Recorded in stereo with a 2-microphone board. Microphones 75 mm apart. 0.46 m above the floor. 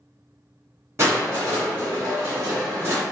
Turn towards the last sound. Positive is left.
turn(degrees=-35)  # may be behind; listen again after turning